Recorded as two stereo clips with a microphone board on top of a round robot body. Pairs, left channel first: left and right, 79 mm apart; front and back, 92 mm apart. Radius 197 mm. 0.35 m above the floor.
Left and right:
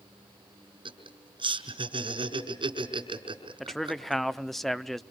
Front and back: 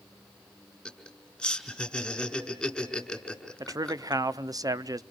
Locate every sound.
0.8 s laughter: 85° right, 5 m
3.6 s a man speaking: 175° left, 1.1 m